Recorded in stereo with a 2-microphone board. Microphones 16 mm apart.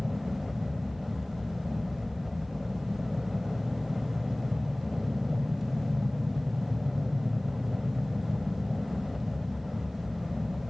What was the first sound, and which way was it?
An aircraft, 5° right (ahead or behind).